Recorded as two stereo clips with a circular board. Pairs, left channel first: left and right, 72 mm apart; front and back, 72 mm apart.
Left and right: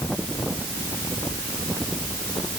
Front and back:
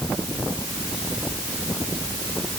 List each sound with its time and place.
Only background noise.